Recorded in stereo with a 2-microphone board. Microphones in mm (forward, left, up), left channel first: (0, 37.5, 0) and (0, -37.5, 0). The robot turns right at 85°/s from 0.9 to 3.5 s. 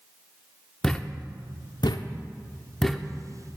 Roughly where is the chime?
No chime in this recording.